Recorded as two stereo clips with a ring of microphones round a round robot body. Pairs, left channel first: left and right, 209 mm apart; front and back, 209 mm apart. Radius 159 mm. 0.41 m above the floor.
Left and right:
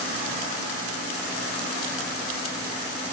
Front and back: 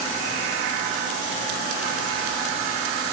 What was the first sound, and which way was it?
Only background noise.